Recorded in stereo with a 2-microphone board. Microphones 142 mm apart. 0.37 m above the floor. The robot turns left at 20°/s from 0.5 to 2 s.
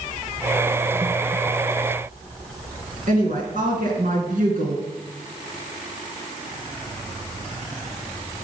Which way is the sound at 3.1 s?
75° right (ahead or behind).